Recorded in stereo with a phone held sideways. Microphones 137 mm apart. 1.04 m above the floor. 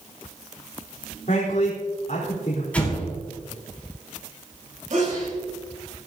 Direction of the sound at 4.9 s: 65° right (ahead or behind).